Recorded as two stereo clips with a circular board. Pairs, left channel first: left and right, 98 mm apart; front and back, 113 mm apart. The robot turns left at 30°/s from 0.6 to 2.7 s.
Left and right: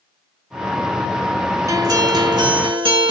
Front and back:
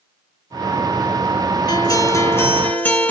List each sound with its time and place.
1.7 s a guitar: 45° right, 1.6 m; by 3.1 s 75° right, 1.6 m